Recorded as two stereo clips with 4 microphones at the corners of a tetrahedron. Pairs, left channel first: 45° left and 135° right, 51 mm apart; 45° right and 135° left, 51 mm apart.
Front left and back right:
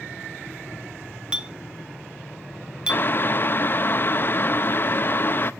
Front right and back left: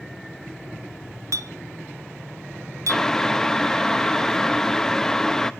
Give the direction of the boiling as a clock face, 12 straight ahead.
11 o'clock.